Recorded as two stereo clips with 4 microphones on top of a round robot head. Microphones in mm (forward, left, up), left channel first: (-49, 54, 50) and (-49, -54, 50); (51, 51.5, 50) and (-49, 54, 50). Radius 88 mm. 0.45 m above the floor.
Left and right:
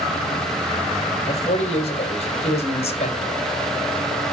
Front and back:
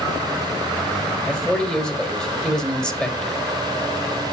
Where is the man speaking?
80° left, 2.5 m.